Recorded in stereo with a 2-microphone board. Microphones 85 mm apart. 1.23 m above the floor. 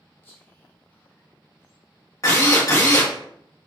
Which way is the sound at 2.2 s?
40° left (ahead or behind).